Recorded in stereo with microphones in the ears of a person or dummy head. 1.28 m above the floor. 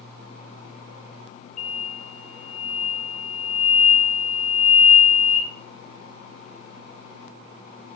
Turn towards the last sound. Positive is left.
turn(degrees=45)  # may be behind; listen again after turning